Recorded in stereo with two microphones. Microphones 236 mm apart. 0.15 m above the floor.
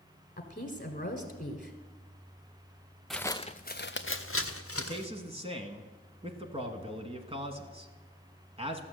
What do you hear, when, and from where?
0.4 s a woman speaking: 35° left (ahead or behind), 1.3 m
3.1 s footsteps: centre (ahead or behind), 0.5 m; by 5.1 s 75° left (ahead or behind), 1.3 m
4.8 s a man speaking: 25° right (ahead or behind), 1.1 m